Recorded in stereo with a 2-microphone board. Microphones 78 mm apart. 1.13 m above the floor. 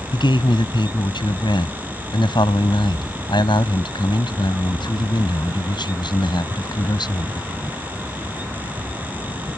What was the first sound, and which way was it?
A man speaking, 80° left.